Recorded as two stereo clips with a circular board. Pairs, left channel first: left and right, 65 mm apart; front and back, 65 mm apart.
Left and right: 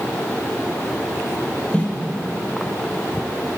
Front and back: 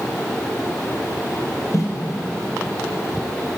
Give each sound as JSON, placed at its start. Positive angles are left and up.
{"t": 1.7, "sound": "footsteps", "azimuth_deg": 20, "distance_m": 2.0}